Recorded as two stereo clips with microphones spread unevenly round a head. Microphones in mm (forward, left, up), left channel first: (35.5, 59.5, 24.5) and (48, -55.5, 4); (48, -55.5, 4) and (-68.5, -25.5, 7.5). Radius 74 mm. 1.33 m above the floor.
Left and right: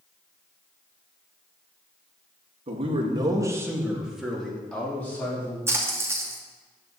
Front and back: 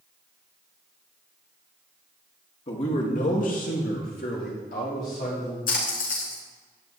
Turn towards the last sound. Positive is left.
turn(degrees=-15)